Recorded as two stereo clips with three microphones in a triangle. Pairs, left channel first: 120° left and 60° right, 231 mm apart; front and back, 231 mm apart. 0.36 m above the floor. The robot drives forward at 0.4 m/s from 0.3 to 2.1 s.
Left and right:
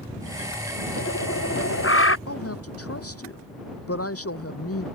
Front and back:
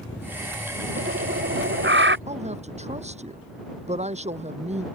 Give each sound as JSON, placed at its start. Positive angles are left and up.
{"t": 1.0, "sound": "a bird", "azimuth_deg": 145}
{"t": 2.3, "sound": "a woman speaking", "azimuth_deg": 120}